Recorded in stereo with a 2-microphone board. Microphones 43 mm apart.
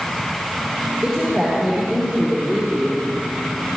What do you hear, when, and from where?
1.0 s a woman speaking: 10° right (ahead or behind), 5.5 m; by 3.0 s 5° left (ahead or behind), 5 m